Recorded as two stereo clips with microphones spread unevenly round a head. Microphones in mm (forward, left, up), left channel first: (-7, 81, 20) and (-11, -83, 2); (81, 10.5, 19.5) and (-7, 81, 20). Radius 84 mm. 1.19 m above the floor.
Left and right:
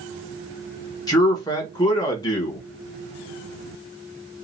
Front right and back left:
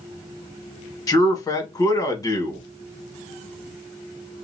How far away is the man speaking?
About 1.5 m.